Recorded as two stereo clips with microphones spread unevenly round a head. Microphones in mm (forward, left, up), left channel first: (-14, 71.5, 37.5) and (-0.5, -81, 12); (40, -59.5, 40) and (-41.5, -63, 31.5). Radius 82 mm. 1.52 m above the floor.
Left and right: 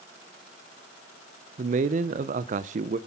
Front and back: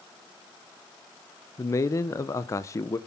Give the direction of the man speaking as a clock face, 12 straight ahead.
1 o'clock.